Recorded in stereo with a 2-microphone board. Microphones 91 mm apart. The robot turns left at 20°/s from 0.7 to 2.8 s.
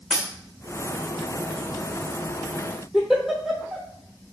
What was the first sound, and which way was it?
A dropped coin, 10° left (ahead or behind).